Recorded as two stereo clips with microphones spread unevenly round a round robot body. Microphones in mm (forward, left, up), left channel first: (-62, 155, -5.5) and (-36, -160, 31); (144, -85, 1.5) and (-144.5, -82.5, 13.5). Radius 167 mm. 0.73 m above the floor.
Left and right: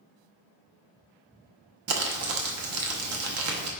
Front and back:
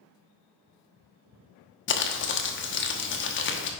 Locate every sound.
1.9 s crumpling: 40° right, 1.0 m